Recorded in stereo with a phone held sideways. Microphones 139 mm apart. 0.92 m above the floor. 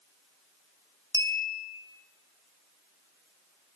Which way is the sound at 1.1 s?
25° left (ahead or behind).